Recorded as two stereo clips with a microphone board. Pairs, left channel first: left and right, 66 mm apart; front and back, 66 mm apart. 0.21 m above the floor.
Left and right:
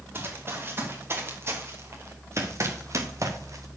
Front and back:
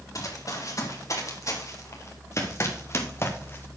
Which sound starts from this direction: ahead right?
Running footsteps, at 0.1 s.